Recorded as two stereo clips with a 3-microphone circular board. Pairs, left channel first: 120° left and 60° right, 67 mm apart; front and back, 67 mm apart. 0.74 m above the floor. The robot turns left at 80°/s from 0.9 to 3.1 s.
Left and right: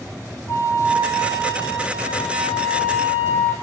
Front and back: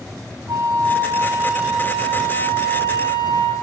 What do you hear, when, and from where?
0.5 s a flute: 165° left, 3.5 m; by 3.5 s 15° right, 3.5 m